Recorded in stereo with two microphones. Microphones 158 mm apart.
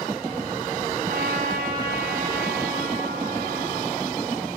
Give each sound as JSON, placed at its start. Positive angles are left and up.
{"t": 1.1, "sound": "a trumpet", "side_deg": -70, "distance_m": 6.5}